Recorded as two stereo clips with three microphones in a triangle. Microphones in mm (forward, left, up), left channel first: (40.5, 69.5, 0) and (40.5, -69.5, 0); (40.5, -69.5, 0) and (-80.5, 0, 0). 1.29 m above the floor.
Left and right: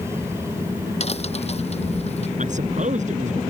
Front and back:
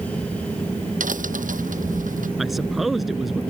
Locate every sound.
1.0 s a crack: 130° left
2.4 s a man speaking: 120° right